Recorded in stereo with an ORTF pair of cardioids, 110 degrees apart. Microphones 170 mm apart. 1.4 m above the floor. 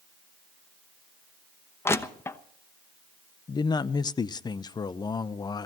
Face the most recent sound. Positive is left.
turn(degrees=25)